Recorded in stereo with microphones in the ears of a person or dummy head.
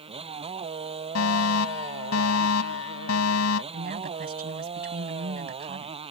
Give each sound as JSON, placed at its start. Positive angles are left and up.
{"t": 0.0, "sound": "a motorcycle", "side_deg": -25}
{"t": 1.1, "sound": "a fire alarm", "side_deg": 75}
{"t": 3.7, "sound": "a woman speaking", "side_deg": -45}